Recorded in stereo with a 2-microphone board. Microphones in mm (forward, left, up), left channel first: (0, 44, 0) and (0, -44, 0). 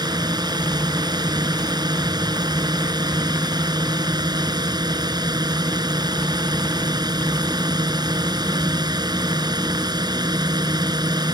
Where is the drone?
50° right (ahead or behind).